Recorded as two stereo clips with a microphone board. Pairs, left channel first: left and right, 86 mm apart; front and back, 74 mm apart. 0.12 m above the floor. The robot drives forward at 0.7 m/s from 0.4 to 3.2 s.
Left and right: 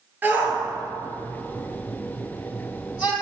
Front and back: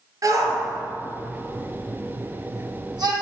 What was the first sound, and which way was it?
A shout, 155° right.